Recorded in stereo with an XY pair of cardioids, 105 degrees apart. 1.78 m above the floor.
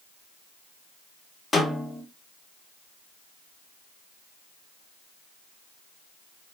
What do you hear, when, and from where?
1.5 s a snare drum: 25° left, 2.0 m